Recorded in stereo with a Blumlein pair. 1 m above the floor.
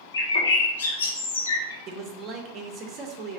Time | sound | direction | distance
0.1 | a bird | 70° left | 0.6 m
1.9 | a man speaking | 30° right | 0.6 m